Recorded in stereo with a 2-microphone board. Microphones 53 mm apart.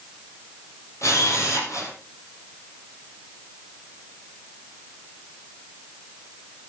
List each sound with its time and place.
1.0 s a camera shutter: 65° left (ahead or behind), 4.5 m